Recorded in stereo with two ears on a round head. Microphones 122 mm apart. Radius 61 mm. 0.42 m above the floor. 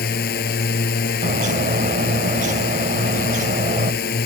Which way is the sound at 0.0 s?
80° left.